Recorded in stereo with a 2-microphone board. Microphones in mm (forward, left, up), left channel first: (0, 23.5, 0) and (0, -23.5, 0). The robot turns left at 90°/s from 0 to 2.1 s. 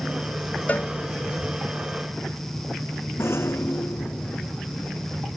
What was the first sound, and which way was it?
A cowbell, 30° left (ahead or behind).